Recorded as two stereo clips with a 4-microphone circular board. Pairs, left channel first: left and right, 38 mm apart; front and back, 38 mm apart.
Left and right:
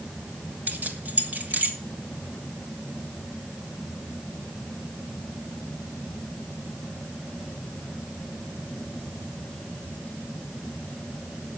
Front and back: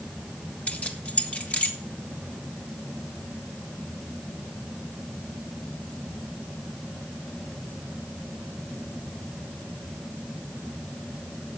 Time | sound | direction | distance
0.7 | keys jangling | 55° right | 1.7 m